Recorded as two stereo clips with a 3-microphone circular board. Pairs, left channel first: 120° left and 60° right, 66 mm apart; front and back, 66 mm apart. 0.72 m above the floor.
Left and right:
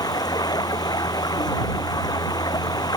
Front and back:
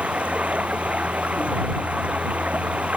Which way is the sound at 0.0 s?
110° left.